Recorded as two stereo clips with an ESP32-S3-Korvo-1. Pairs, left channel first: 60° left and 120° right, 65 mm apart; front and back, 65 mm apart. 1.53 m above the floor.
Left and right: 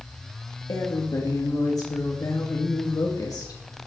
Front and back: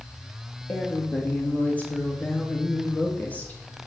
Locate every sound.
0.7 s a woman speaking: 65° left, 2 m